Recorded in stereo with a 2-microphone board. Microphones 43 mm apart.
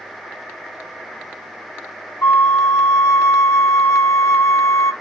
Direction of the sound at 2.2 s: 70° left (ahead or behind).